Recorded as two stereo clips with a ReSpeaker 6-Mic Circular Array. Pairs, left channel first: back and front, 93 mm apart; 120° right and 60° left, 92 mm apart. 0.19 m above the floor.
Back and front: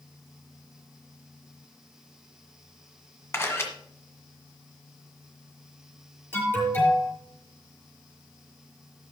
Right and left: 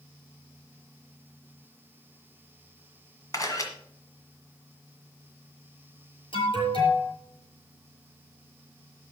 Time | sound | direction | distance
3.3 | a camera shutter | 135° right | 1.8 m
6.3 | an alarm | 115° right | 5.5 m